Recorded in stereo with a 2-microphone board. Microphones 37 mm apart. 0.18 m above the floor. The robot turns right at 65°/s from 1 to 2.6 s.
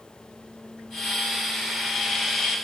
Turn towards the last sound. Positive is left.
No sound to turn to.